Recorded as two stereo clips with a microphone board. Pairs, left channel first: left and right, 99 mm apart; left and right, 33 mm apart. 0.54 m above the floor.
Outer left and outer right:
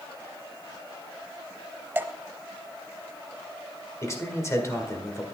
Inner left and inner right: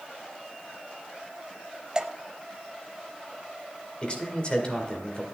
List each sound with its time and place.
1.9 s dripping: 20° right (ahead or behind), 0.6 m
4.0 s a man speaking: 30° left (ahead or behind), 2.0 m